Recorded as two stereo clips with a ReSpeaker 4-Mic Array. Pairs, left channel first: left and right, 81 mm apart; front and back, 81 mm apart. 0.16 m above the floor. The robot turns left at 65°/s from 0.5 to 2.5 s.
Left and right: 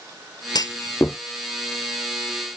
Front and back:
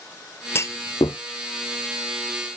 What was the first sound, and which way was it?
A clunk, 60° left.